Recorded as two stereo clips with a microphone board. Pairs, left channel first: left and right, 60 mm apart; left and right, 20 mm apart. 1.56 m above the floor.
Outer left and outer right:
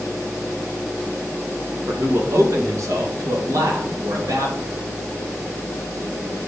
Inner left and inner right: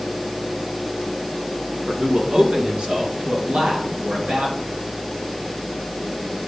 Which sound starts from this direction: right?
A man speaking, at 1.9 s.